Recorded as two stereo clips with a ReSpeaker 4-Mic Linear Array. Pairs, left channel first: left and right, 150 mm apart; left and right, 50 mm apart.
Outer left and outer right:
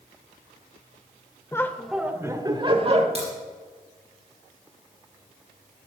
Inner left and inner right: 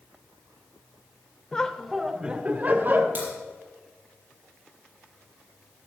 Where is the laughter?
20° left (ahead or behind), 0.8 m; by 3.0 s 45° right (ahead or behind), 1.1 m.